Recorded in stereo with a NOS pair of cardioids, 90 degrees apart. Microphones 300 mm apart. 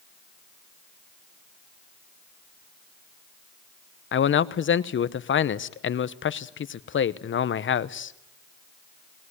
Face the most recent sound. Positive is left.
turn(degrees=40)